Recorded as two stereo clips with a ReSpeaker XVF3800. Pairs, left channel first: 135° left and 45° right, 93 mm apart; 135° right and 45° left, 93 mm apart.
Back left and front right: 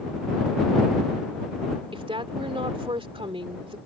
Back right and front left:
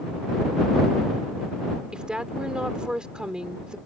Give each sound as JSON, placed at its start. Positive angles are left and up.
{"t": 1.9, "sound": "a woman speaking", "azimuth_deg": -35}